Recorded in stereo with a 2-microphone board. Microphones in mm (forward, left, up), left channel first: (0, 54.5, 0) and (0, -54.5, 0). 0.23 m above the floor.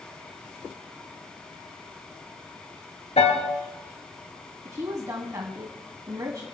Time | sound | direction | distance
3.2 | a piano | 70° left (ahead or behind) | 2.5 m
4.7 | a woman speaking | 30° right (ahead or behind) | 1.7 m